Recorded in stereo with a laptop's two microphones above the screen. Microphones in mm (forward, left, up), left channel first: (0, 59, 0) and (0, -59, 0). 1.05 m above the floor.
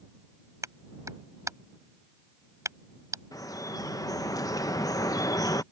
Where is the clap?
25° right (ahead or behind).